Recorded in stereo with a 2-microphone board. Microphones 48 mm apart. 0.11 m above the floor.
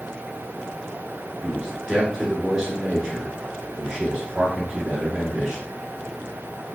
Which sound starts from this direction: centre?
A man speaking, at 1.4 s.